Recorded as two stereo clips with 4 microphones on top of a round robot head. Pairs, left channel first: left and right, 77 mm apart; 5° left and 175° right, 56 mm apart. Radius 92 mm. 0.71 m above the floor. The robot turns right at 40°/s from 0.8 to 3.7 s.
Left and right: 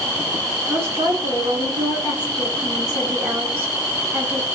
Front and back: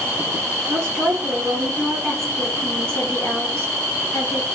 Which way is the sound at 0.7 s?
145° right.